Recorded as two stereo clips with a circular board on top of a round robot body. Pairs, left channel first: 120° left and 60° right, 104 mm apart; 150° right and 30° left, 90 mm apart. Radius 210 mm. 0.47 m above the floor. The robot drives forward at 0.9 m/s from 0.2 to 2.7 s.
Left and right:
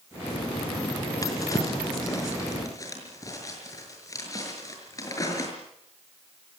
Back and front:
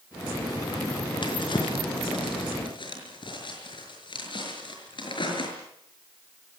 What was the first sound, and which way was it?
A drawer, straight behind.